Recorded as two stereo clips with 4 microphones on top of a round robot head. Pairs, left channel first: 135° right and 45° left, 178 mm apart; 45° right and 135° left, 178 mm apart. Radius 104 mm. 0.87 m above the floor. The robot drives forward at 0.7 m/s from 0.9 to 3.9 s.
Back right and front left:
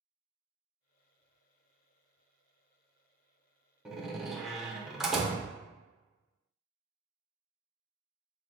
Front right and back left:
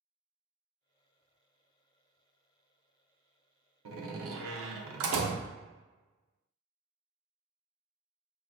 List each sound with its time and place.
3.9 s a door slam: 135° left, 0.7 m